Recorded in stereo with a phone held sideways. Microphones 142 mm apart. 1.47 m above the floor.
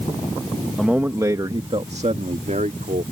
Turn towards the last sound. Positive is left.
turn(degrees=-65)  # may be behind; listen again after turning